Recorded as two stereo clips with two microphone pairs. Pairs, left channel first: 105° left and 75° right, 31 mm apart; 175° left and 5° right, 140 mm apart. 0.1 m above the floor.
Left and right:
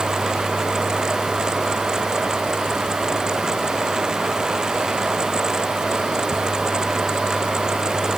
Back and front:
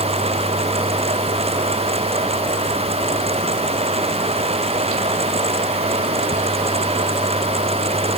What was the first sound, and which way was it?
Only background noise.